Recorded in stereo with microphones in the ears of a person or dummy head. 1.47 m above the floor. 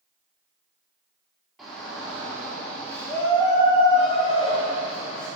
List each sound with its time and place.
1.6 s a shout: centre (ahead or behind), 3 m; by 5.3 s 55° left (ahead or behind), 1.7 m